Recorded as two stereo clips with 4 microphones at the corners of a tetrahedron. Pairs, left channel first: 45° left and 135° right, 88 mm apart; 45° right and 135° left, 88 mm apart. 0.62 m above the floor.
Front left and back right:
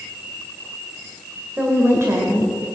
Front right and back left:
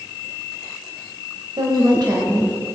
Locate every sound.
1.6 s a woman speaking: 155° left, 2 m; by 2.6 s 175° right, 1.9 m